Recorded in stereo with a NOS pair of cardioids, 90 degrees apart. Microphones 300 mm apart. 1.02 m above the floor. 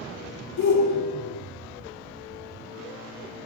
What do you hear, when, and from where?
0.6 s a shout: 65° left, 2.5 m